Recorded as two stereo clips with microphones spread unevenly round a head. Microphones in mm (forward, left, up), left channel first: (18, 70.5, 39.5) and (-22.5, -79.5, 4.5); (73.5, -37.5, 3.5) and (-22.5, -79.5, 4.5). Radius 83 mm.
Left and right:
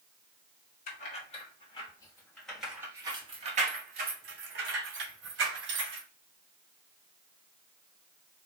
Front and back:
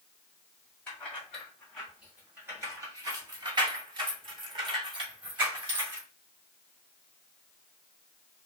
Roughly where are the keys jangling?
Left.